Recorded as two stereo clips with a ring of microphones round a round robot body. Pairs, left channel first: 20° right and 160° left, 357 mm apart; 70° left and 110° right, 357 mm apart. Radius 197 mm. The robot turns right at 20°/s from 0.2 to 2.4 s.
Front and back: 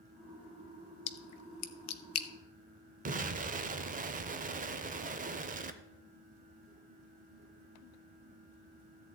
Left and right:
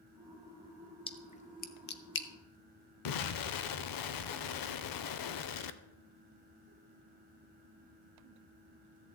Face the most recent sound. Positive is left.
turn(degrees=90)